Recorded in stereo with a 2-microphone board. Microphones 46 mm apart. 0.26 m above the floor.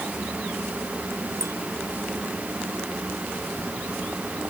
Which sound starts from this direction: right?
A clink, at 1.4 s.